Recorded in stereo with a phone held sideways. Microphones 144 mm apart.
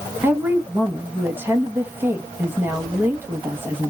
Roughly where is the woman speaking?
Centre.